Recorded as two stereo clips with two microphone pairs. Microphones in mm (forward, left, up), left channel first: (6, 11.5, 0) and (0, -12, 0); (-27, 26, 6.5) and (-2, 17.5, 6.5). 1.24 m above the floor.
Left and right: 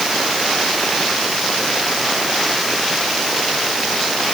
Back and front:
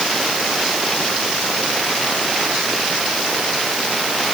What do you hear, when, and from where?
Only background noise.